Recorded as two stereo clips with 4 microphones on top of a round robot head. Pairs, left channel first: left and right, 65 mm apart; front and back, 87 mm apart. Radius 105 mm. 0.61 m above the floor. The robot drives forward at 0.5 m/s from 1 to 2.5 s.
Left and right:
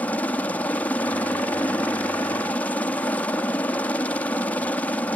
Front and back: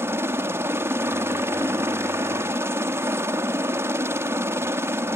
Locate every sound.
0.0 s a helicopter: 140° left; by 5.2 s 145° left